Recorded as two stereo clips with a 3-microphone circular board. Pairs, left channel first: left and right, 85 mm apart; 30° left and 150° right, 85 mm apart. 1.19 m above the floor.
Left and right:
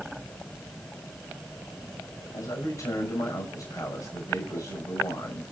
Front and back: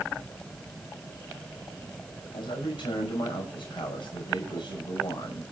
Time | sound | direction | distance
2.3 | a man speaking | 45° left | 5.5 m